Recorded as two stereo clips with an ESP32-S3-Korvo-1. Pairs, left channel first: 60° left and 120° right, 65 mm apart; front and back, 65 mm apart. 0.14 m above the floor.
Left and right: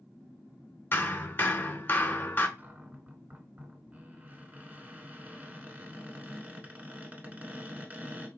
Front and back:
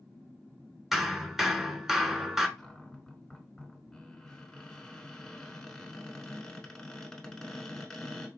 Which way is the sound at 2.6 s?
75° right.